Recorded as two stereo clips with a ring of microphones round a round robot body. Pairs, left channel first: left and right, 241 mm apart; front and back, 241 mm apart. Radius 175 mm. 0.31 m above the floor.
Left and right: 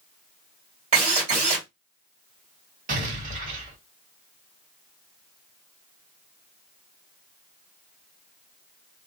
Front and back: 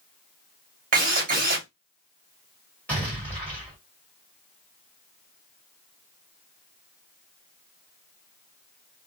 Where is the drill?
145° right, 1.6 m.